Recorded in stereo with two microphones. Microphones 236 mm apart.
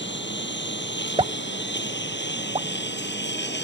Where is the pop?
25° right (ahead or behind).